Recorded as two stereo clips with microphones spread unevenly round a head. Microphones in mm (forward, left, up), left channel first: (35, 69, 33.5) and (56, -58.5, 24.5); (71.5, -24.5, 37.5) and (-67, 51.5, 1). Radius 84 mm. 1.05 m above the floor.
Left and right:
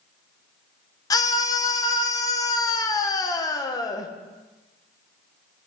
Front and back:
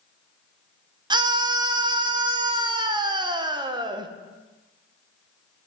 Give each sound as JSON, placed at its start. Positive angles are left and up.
{"t": 1.1, "sound": "a scream", "azimuth_deg": 150, "distance_m": 0.9}